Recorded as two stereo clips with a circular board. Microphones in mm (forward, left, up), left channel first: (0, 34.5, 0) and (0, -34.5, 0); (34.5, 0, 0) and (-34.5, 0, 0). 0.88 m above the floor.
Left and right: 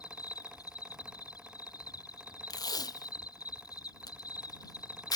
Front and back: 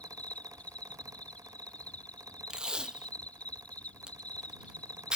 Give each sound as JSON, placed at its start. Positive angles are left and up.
{"t": 0.0, "sound": "an insect", "azimuth_deg": 70}
{"t": 2.5, "sound": "tape being pulled", "azimuth_deg": 105}